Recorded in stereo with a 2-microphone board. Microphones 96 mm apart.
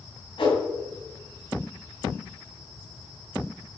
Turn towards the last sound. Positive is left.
turn(degrees=60)  # may be behind; listen again after turning